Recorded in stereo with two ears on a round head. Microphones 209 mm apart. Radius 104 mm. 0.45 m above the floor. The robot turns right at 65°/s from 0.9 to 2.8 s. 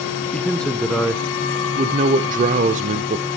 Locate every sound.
0.3 s a man speaking: 170° left, 0.9 m; by 3.2 s 65° right, 0.9 m